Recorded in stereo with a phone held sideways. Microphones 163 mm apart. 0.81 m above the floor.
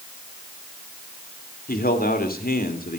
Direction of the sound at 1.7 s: 65° left (ahead or behind).